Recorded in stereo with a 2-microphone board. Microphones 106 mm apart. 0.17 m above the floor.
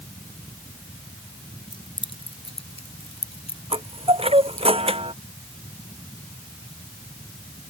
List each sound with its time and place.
1.7 s keys jangling: 50° left (ahead or behind); by 4.7 s 80° left
3.7 s a chime: 65° right (ahead or behind)